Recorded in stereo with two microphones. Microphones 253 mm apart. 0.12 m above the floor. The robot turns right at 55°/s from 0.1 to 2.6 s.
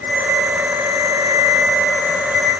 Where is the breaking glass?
I don't hear breaking glass.